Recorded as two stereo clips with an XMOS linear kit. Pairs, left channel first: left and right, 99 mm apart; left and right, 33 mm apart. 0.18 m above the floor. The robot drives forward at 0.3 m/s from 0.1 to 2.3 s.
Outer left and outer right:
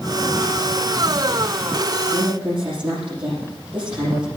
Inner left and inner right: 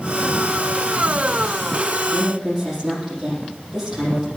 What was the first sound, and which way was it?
A woman speaking, 10° right (ahead or behind).